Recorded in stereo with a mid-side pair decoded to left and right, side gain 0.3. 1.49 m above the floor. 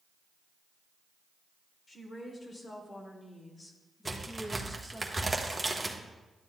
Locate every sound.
1.9 s a woman speaking: 60° left, 2.5 m; by 5.0 s 10° right, 1.2 m
4.0 s a crack: 25° right, 1.3 m